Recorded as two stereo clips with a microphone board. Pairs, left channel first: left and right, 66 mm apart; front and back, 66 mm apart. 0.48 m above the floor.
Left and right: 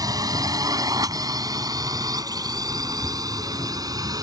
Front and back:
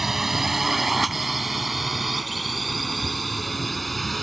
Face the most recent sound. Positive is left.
turn(degrees=-90)